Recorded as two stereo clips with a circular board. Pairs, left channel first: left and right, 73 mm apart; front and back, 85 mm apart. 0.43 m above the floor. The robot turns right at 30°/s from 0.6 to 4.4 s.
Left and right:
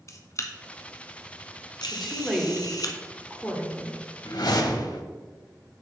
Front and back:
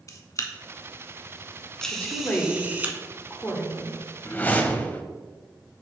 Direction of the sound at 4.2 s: 65° left.